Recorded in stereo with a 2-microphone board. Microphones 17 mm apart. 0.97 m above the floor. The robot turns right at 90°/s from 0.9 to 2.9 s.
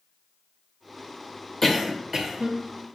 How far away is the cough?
About 1.0 m.